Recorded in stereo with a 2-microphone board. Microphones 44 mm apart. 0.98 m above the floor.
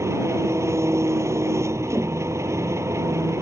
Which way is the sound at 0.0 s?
90° right.